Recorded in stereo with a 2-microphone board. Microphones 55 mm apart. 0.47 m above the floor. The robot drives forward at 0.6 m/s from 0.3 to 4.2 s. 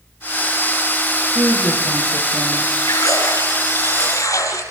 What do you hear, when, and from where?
1.4 s a woman speaking: 60° right (ahead or behind), 9.5 m
2.9 s a splash: 70° left (ahead or behind), 6.5 m; by 4.6 s 65° left (ahead or behind), 7 m